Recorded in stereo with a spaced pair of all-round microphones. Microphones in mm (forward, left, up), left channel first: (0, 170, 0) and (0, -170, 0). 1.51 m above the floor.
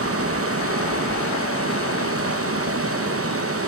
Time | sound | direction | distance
0.0 | running water | 40° right (ahead or behind) | 0.9 m